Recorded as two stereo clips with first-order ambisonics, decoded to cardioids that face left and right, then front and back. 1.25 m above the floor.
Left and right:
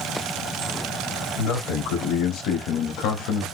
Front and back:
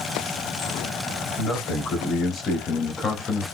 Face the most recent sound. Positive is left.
turn(degrees=80)